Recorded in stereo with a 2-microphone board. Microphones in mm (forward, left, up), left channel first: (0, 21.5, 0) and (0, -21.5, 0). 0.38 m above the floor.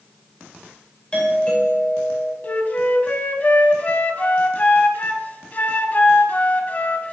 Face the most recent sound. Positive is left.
turn(degrees=40)  # may be behind; listen again after turning